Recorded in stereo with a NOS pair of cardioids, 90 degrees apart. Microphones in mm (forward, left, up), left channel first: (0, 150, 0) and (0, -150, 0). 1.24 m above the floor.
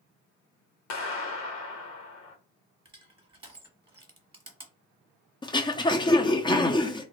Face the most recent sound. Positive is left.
turn(degrees=15)